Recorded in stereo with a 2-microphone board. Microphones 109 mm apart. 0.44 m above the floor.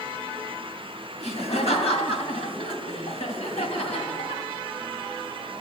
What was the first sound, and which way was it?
Laughter, 65° left (ahead or behind).